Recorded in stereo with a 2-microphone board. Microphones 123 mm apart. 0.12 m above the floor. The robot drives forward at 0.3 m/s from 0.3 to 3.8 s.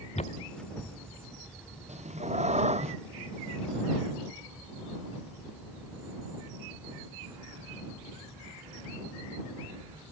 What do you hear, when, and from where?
0.1 s footsteps: 65° left (ahead or behind); by 1.9 s 25° right (ahead or behind)
1.9 s a cat meowing: 65° right (ahead or behind)